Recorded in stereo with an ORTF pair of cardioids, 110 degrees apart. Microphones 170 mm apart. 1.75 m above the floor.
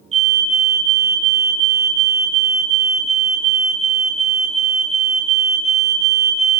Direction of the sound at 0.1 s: 40° right.